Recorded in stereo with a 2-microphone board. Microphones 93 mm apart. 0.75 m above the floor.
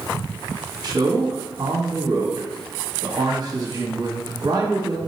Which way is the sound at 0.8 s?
45° right (ahead or behind).